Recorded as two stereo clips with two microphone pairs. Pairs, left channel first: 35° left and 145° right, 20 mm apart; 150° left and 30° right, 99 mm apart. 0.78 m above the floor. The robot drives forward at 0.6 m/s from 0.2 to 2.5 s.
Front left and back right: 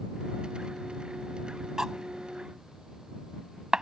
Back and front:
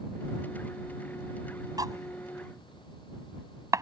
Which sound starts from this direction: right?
Cutlery clinking, at 1.8 s.